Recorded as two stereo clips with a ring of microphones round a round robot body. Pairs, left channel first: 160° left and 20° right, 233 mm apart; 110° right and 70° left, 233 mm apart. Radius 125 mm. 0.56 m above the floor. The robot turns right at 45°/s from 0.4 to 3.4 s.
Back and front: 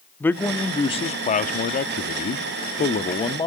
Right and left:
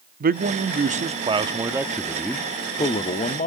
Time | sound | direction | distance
0.2 | a man speaking | 80° left | 1.1 m